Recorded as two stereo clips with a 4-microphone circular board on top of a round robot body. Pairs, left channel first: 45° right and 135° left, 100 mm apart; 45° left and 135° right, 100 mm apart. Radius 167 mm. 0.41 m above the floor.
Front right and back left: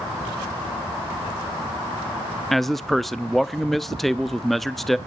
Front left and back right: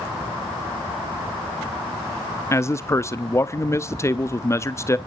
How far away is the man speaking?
About 0.8 m.